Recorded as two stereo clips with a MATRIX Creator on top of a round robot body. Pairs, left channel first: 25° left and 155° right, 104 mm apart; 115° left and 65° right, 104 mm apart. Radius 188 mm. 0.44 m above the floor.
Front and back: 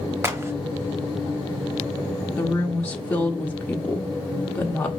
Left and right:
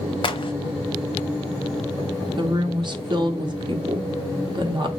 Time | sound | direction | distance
0.2 | a crack | 135° left | 1.0 m
2.4 | a woman speaking | 50° right | 1.1 m